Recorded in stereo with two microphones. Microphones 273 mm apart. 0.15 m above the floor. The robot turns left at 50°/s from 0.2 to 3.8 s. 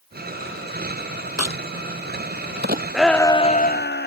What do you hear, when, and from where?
1.4 s a crack: 70° right (ahead or behind); by 2.8 s 30° right (ahead or behind)
2.9 s a shout: 175° right; by 4.1 s 140° left